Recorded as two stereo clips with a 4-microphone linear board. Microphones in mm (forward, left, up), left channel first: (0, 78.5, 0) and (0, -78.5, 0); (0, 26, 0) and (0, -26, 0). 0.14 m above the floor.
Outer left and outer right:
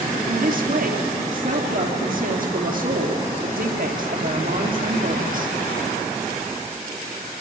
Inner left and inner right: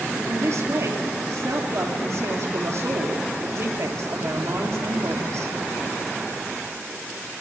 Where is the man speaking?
65° right (ahead or behind), 3 m.